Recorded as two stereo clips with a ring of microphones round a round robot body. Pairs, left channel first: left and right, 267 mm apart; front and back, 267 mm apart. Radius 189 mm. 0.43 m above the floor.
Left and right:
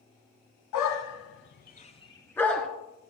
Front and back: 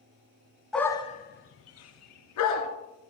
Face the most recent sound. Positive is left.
turn(degrees=0)